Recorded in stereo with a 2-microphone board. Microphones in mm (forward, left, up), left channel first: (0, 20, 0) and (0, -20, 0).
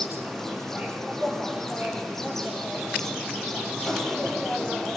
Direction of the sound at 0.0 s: 10° left (ahead or behind).